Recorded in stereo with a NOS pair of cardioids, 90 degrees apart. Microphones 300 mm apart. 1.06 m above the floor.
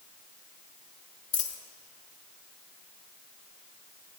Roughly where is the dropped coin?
Ahead left.